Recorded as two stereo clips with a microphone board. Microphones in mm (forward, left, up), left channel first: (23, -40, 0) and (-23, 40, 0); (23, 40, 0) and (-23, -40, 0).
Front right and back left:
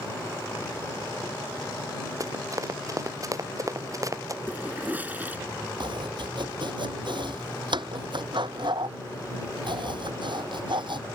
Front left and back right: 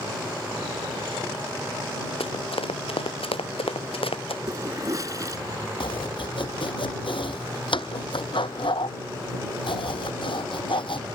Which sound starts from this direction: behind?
A toilet flushing, at 4.5 s.